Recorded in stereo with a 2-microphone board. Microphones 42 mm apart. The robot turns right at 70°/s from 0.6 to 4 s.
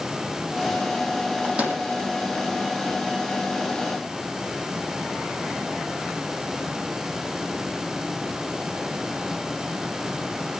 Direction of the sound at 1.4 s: 20° right (ahead or behind).